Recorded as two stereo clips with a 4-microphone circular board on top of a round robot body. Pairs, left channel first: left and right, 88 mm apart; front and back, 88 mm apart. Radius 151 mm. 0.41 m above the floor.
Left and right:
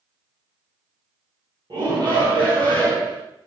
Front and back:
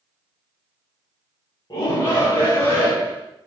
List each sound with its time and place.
1.7 s a shout: 45° right, 3.5 m; by 3.2 s 65° right, 5.5 m